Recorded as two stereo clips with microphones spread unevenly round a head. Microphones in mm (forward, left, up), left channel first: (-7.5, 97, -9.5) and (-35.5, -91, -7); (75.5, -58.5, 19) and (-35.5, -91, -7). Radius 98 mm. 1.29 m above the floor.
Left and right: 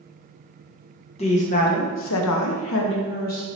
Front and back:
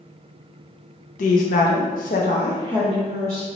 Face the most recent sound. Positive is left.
turn(degrees=130)